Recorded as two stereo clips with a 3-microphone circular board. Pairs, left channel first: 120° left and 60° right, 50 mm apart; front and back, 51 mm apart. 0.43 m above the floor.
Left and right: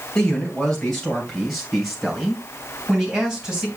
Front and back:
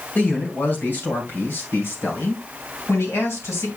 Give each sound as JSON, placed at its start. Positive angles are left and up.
{"t": 0.1, "sound": "a man speaking", "azimuth_deg": 45, "distance_m": 3.0}